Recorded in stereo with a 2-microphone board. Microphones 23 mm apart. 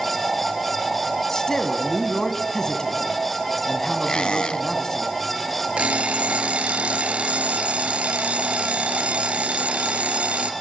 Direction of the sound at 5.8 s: 75° right (ahead or behind).